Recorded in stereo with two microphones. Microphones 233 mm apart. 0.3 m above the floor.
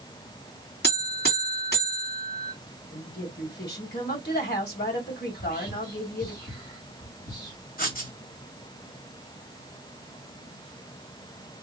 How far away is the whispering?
About 1.7 m.